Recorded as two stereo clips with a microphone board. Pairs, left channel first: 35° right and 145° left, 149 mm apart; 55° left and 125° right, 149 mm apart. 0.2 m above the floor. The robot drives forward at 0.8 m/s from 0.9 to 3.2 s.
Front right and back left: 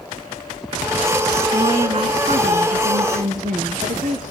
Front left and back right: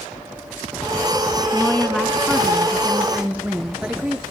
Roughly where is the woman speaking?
Behind left.